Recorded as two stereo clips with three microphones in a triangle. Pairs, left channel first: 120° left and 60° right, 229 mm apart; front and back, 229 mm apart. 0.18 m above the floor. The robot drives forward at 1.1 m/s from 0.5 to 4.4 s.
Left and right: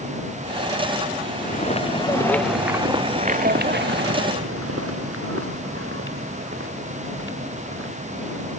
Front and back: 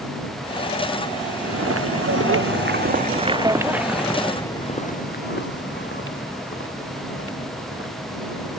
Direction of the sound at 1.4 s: 170° left.